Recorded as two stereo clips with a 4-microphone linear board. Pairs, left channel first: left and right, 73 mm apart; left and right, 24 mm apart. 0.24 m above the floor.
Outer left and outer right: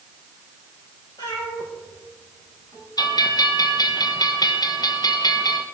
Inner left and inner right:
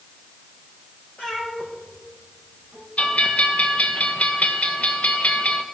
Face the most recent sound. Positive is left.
turn(degrees=65)  # may be behind; listen again after turning